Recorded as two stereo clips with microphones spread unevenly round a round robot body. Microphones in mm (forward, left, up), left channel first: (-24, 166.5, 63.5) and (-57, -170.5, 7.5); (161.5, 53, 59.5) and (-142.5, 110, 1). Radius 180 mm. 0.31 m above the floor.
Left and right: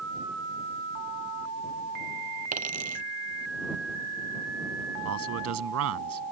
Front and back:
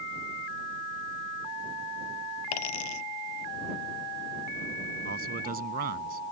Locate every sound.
2.5 s a dropped coin: 25° right
5.0 s a man speaking: 135° right